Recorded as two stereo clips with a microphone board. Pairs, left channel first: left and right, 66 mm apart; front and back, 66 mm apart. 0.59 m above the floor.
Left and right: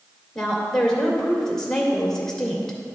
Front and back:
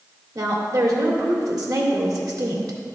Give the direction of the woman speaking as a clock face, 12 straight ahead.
6 o'clock.